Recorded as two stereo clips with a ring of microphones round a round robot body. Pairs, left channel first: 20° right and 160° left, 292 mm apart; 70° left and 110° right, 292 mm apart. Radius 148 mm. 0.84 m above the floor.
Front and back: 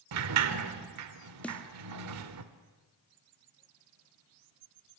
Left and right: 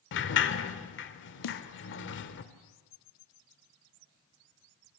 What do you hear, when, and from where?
0.1 s a sliding door: 120° left, 1.5 m
1.4 s a snare drum: 65° left, 1.4 m